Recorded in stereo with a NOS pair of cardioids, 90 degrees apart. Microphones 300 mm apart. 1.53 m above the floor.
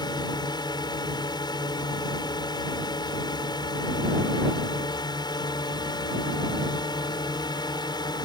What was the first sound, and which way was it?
A drone, 15° left.